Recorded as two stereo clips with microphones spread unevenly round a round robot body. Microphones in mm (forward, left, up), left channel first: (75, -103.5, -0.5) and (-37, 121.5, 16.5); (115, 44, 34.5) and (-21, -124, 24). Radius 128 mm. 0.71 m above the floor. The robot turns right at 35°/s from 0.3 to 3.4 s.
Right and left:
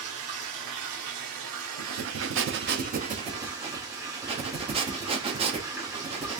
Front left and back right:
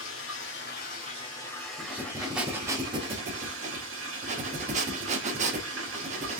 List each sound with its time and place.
0.0 s running water: 90° left, 1.5 m; by 6.4 s 165° right, 1.5 m
1.8 s breathing: 125° left, 0.6 m; by 6.4 s 175° right, 0.6 m